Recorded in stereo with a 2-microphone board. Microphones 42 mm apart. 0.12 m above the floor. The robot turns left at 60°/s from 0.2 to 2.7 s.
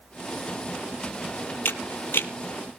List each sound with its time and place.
1.6 s a camera shutter: 60° left (ahead or behind), 1.0 m; by 2.3 s 65° left (ahead or behind), 1.0 m